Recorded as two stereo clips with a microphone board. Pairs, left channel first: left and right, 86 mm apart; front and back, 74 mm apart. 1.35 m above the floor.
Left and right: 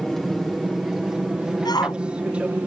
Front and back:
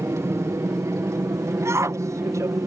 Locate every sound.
0.0 s an aircraft: 175° left; by 2.7 s 160° right
1.6 s a shout: 130° left